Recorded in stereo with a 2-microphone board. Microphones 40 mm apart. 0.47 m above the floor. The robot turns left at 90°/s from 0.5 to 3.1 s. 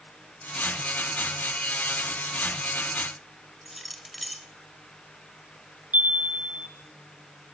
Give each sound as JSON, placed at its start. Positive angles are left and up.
{"t": 3.6, "sound": "keys jangling", "side_deg": 0, "distance_m": 1.5}
{"t": 5.9, "sound": "a chime", "side_deg": -45, "distance_m": 3.0}